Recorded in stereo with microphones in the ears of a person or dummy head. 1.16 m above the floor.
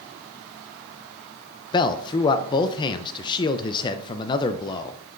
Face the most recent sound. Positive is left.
turn(degrees=25)  # may be behind; listen again after turning